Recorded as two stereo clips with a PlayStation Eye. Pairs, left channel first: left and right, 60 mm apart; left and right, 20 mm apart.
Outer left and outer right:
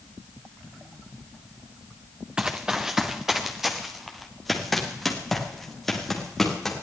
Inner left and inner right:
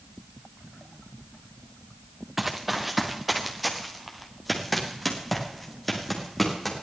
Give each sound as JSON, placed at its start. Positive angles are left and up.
{"t": 2.4, "sound": "running footsteps", "side_deg": -15, "distance_m": 1.3}